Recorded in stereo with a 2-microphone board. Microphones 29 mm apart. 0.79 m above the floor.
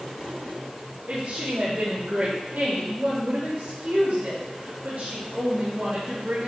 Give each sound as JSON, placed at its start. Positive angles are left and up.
{"t": 1.1, "sound": "a woman speaking", "side_deg": -75, "distance_m": 1.9}